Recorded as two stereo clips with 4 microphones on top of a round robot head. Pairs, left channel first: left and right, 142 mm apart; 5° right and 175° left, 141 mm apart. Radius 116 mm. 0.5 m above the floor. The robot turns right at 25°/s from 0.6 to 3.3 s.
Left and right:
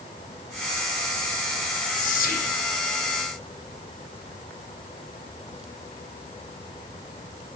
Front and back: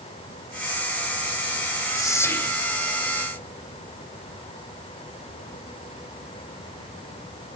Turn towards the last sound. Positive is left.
turn(degrees=95)